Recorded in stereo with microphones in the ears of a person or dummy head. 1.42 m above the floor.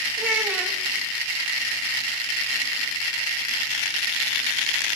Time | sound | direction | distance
0.2 | a child speaking | 15° right (ahead or behind) | 1.9 m